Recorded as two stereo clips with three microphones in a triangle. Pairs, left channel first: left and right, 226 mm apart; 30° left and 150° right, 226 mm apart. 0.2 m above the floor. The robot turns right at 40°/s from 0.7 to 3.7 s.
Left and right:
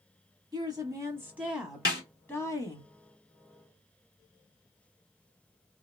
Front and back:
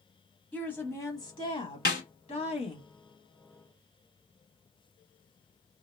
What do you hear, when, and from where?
0.5 s a woman speaking: 45° right, 1.1 m; by 2.9 s 45° left, 1.1 m
1.9 s a snare drum: 65° left, 0.8 m; by 2.0 s 70° left, 0.8 m